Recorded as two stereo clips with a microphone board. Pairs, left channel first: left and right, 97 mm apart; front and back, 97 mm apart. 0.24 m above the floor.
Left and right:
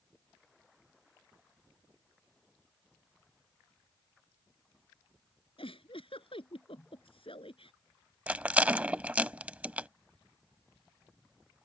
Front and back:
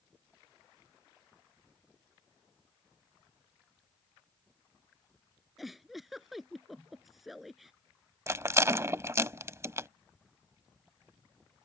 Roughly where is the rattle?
Behind right.